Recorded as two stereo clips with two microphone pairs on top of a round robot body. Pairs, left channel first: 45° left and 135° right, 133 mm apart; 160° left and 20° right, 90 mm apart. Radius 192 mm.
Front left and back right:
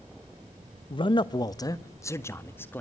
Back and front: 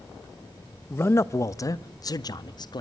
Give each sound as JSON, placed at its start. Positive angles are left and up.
{"t": 0.9, "sound": "a man speaking", "azimuth_deg": 95, "distance_m": 1.1}